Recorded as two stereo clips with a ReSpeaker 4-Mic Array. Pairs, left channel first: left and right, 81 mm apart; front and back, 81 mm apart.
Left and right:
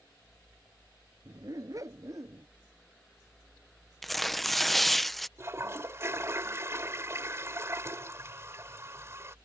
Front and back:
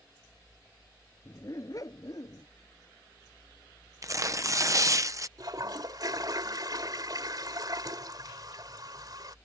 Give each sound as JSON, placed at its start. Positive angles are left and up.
{"t": 1.2, "sound": "a dog barking", "azimuth_deg": -50}
{"t": 4.0, "sound": "tearing paper", "azimuth_deg": 175}
{"t": 5.4, "sound": "a toilet flushing", "azimuth_deg": -145}